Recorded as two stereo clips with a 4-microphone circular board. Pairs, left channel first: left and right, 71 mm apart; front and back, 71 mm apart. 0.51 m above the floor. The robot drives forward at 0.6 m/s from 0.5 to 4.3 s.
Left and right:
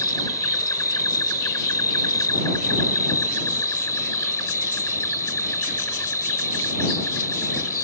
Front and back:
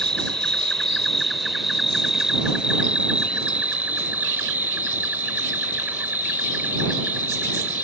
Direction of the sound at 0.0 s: 80° left.